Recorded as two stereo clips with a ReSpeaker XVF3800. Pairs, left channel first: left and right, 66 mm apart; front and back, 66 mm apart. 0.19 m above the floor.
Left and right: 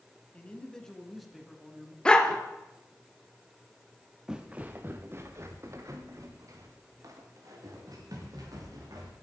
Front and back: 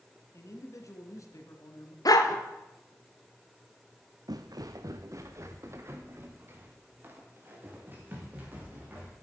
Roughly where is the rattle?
I don't hear a rattle.